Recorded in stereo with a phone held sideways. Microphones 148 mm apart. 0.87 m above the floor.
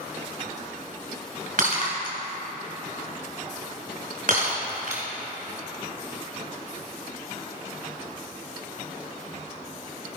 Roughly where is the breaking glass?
Right.